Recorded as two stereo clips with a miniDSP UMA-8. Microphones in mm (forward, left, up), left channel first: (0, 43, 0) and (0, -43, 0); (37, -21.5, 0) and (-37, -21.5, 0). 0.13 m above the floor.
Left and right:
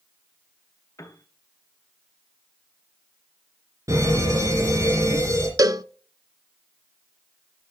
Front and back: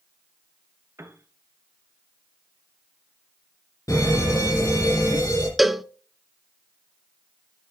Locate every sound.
1.0 s a piano: 135° left, 1.0 m
3.9 s a fire alarm: 40° right, 7.5 m
5.6 s a cowbell: 95° right, 0.5 m